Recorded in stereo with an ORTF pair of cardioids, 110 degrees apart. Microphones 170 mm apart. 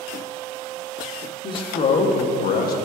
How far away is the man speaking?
About 1.6 m.